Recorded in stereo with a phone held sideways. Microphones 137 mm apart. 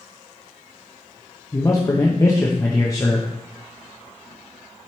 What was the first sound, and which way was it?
A man speaking, 25° left (ahead or behind).